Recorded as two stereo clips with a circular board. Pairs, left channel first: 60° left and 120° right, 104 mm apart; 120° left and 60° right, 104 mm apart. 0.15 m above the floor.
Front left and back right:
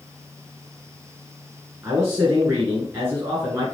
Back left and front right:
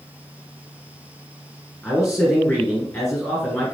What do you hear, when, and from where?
1.8 s a man speaking: 175° right, 2.5 m